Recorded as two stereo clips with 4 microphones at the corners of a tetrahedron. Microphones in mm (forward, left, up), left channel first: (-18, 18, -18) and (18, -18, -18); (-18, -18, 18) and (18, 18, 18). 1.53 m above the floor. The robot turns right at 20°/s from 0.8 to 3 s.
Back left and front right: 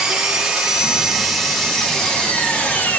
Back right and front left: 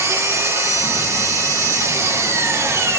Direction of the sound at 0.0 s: 30° left.